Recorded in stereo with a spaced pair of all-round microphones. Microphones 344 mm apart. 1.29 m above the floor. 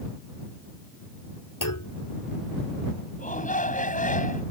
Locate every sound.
1.6 s a clunk: 65° left (ahead or behind)
3.2 s a shout: 20° left (ahead or behind)